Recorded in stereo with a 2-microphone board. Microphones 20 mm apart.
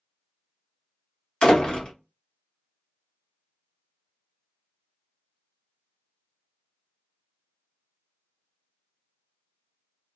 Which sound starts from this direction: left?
A door slam, at 1.4 s.